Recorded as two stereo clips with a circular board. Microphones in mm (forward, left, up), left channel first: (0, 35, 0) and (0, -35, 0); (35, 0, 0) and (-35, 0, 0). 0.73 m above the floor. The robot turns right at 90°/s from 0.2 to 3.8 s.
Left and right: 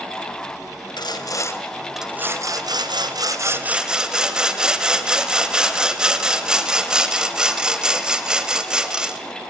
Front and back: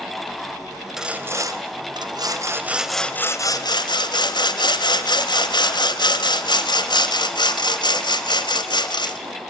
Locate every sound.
1.0 s sawing: 95° left, 1.5 m; by 9.2 s 10° right, 1.5 m